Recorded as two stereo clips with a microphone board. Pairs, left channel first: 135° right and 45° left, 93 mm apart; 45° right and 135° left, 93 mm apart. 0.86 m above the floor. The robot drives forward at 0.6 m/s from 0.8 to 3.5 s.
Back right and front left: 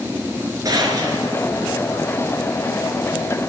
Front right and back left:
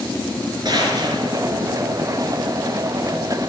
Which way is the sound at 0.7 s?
95° left.